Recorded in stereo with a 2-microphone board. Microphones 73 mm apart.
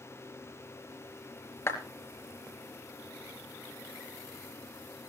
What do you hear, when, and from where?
1.7 s a clap: 35° left (ahead or behind), 4 m